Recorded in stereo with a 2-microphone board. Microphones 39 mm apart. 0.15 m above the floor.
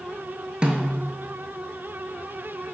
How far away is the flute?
No flute in this recording.